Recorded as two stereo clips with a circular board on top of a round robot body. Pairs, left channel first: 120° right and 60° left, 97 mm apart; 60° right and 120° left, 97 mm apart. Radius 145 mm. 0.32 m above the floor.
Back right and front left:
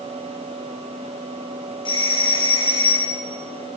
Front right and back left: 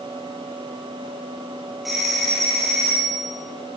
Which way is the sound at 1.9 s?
150° right.